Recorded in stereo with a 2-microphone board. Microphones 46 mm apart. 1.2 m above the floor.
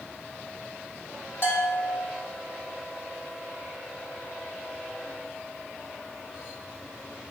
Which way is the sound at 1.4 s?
55° left (ahead or behind).